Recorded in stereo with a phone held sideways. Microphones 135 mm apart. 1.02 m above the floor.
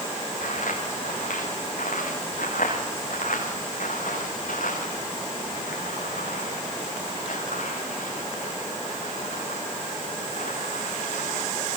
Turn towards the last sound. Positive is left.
turn(degrees=70)  # may be behind; listen again after turning